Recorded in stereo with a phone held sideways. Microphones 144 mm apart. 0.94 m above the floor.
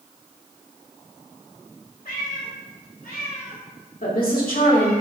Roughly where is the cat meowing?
Left.